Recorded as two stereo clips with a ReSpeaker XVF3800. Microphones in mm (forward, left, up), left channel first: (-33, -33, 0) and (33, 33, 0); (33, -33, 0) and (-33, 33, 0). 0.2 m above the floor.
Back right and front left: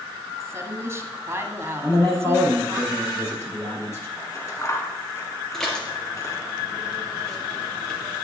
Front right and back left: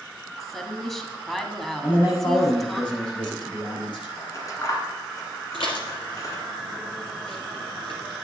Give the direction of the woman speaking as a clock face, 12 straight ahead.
11 o'clock.